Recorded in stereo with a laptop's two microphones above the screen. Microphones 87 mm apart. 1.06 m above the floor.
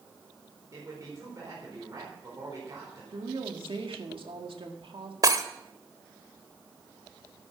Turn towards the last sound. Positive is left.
turn(degrees=-45)  # may be behind; listen again after turning